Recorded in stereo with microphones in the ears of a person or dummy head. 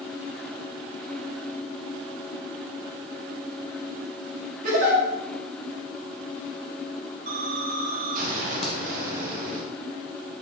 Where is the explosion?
45° right (ahead or behind), 0.6 m.